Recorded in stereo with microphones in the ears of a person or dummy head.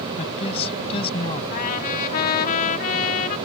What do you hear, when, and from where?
0.2 s a woman speaking: 35° left (ahead or behind); by 1.4 s 30° left (ahead or behind)
1.5 s a trumpet: 50° left (ahead or behind)